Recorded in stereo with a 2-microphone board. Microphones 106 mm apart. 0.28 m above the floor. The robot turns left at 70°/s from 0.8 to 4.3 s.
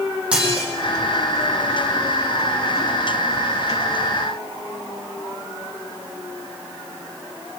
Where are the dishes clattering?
10° right (ahead or behind), 8 m.